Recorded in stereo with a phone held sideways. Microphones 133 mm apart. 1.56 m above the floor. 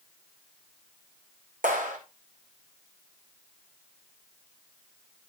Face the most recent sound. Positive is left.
turn(degrees=-80)